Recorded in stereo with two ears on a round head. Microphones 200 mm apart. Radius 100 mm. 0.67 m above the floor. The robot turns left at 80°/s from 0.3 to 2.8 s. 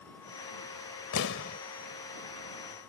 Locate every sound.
1.1 s an explosion: 75° left; by 1.6 s 40° left